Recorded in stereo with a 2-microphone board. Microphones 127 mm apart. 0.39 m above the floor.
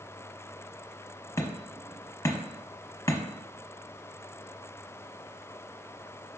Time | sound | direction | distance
1.4 | hammering | 25° left (ahead or behind) | 0.6 m